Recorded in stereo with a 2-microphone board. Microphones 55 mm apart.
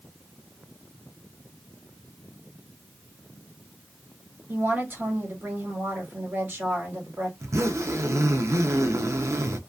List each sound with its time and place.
4.5 s a woman speaking: 40° right (ahead or behind), 1.5 m
7.4 s a zipper: 65° right (ahead or behind), 0.5 m